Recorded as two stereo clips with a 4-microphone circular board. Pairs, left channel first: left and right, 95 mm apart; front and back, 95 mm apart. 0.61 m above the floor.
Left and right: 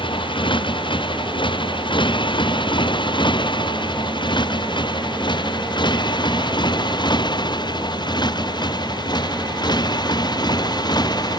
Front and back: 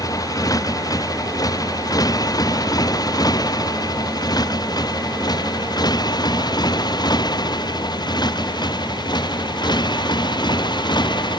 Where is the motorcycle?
55° left; by 11.4 s 45° left.